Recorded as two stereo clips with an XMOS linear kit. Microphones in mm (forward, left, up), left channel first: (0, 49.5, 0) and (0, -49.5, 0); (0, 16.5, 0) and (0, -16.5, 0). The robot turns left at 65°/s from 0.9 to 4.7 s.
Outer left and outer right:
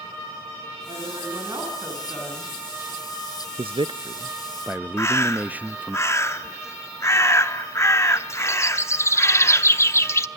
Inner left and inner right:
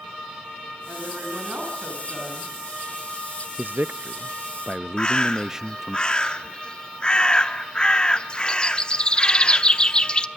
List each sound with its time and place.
0.9 s a woman speaking: 100° right, 9.5 m; by 2.5 s 155° left, 9.5 m
3.6 s a man speaking: 90° right, 0.5 m; by 6.0 s 165° right, 0.5 m
5.0 s a bird: 25° left (ahead or behind), 0.9 m